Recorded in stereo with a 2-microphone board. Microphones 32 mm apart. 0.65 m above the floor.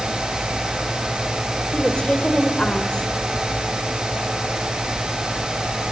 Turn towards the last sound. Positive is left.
turn(degrees=30)  # may be behind; listen again after turning